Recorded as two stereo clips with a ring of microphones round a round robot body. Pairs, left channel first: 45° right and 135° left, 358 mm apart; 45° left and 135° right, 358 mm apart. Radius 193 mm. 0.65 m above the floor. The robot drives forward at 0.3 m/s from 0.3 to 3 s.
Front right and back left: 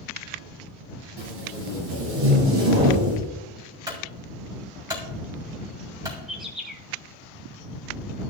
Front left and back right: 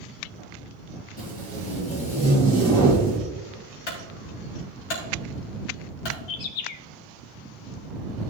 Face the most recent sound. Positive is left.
turn(degrees=45)